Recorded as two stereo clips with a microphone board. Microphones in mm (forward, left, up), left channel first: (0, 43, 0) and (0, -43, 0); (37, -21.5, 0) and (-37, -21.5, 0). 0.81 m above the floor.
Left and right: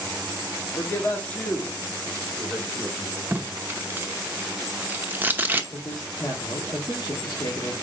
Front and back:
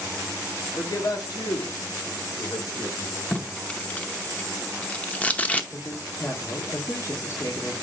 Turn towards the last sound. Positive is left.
turn(degrees=50)